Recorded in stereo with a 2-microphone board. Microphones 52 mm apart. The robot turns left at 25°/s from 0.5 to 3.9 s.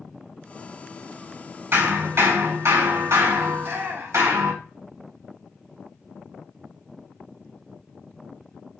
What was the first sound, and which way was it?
Hammering, 55° right.